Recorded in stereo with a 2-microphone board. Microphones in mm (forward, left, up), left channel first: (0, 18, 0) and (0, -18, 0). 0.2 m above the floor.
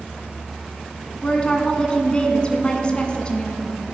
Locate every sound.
1.2 s a woman speaking: 25° left (ahead or behind), 1.7 m